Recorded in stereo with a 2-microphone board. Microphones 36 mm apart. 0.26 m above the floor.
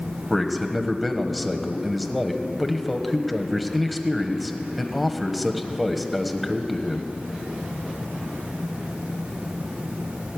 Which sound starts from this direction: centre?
A man speaking, at 0.3 s.